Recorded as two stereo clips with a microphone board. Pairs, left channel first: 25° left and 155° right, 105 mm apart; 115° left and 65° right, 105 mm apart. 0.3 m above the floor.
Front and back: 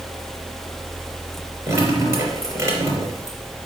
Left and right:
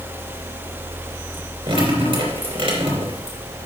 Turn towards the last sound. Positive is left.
turn(degrees=-100)